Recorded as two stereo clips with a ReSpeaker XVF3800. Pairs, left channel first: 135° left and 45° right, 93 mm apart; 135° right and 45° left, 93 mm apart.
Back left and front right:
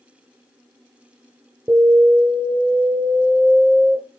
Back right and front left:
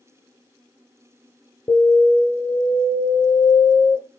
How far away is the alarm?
About 2.5 m.